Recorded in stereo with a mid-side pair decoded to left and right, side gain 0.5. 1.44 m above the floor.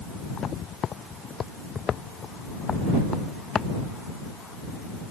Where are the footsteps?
50° left; by 3.7 s 35° left.